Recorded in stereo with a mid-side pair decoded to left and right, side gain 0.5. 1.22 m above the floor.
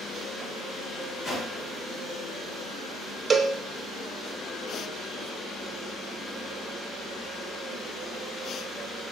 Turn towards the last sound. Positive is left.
turn(degrees=-30)